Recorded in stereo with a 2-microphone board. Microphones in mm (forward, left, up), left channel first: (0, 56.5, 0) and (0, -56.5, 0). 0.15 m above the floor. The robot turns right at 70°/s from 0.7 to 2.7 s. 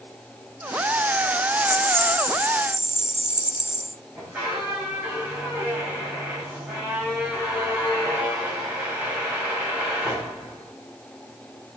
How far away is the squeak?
About 7 m.